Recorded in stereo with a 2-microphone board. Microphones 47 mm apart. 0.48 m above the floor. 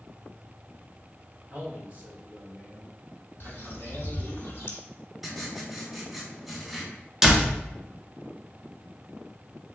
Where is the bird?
60° left (ahead or behind), 1.2 m.